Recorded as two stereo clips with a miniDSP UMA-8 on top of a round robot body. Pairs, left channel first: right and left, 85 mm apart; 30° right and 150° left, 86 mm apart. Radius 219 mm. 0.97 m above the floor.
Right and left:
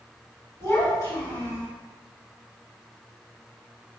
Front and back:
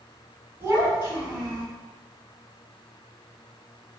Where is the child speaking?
145° right, 2.0 m.